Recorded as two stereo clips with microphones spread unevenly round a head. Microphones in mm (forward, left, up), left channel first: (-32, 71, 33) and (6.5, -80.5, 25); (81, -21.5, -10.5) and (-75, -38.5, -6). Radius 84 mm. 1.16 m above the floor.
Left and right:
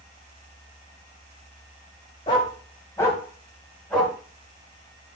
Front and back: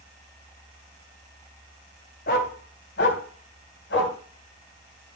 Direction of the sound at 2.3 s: 40° left.